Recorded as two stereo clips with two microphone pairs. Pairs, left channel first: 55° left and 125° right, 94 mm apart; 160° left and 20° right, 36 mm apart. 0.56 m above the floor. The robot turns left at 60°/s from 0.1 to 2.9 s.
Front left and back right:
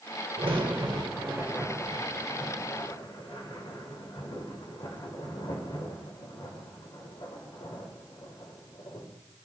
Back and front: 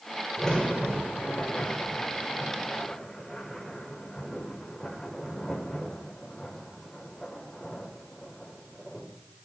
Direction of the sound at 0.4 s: 125° right.